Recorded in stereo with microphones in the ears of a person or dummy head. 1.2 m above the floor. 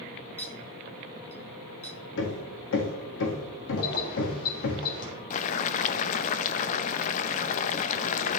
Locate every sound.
0.4 s a clink: 15° left (ahead or behind), 1.2 m
2.2 s hammering: 60° left (ahead or behind), 1.7 m
3.8 s keys jangling: 60° left (ahead or behind), 3.5 m
5.3 s boiling: 45° left (ahead or behind), 0.7 m